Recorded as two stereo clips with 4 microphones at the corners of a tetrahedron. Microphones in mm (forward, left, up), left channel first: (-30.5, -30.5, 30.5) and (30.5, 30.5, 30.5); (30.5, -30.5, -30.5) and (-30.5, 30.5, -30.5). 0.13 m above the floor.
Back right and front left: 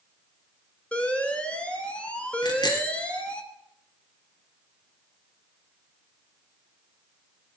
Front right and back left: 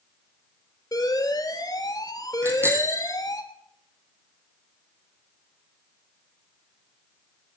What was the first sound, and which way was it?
An alarm, 65° right.